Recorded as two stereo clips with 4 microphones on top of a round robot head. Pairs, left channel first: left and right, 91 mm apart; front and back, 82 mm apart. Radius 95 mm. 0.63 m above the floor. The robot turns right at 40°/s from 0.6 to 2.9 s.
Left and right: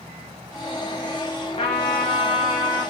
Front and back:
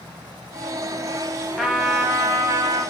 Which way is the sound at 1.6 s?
90° left.